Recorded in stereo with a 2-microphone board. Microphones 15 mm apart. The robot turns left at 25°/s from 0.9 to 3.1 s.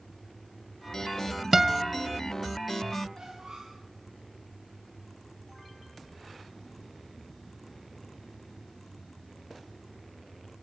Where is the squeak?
60° right (ahead or behind), 7.5 m.